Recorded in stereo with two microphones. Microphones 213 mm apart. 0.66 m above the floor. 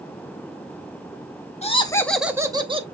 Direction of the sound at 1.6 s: 30° left (ahead or behind).